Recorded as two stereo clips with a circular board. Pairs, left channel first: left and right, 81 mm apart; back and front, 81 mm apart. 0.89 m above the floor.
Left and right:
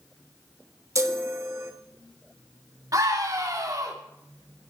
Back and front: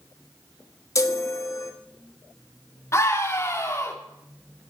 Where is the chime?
135° right, 1.3 m.